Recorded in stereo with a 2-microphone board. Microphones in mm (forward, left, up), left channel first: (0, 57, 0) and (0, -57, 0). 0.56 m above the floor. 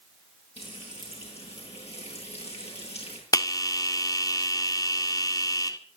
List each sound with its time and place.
0.6 s frying: 65° left (ahead or behind), 9.5 m
3.3 s a bell: 30° left (ahead or behind), 1.7 m